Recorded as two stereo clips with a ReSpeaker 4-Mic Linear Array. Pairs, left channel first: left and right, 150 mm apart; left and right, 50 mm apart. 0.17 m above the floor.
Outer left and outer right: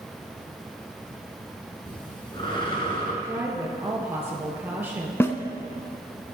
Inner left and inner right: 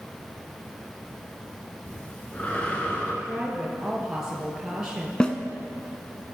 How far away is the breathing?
About 2 m.